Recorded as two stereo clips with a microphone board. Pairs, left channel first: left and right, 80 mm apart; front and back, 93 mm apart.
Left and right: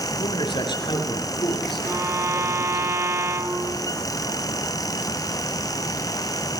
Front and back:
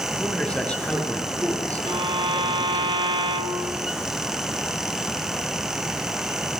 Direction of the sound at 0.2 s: 80° left.